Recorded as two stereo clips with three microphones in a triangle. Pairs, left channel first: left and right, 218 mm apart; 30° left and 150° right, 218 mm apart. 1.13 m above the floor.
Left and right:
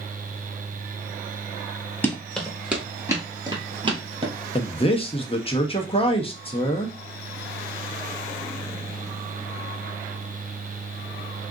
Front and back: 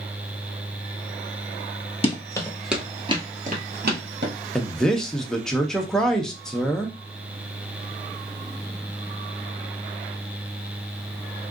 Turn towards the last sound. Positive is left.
turn(degrees=115)